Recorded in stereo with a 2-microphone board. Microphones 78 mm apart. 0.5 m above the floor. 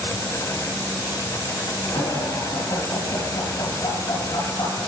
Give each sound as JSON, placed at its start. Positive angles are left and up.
{"t": 1.9, "sound": "laughter", "side_deg": 70, "distance_m": 5.0}